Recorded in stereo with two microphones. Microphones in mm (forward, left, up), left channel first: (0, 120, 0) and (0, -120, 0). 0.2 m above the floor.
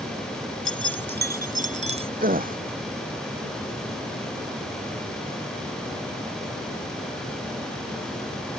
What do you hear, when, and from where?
0.7 s keys jangling: 60° right (ahead or behind); by 2.1 s 25° right (ahead or behind)
2.2 s a gasp: 35° right (ahead or behind)